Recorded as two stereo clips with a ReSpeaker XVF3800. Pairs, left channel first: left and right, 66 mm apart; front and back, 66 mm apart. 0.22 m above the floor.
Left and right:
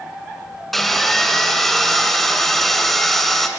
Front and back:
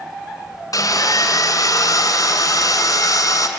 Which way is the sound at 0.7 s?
5° left.